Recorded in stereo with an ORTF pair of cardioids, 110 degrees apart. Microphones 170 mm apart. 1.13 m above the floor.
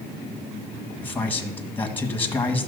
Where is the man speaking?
10° left, 1.4 m.